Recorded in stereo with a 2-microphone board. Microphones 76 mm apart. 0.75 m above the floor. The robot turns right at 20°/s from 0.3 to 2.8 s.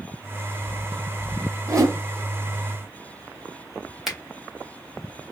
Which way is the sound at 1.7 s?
40° right (ahead or behind).